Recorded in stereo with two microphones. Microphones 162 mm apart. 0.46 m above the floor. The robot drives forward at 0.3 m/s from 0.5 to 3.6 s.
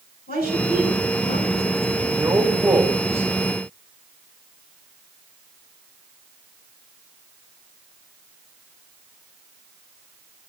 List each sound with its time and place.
0.3 s a woman speaking: 75° left (ahead or behind), 5 m
2.1 s a man speaking: 15° right (ahead or behind), 2 m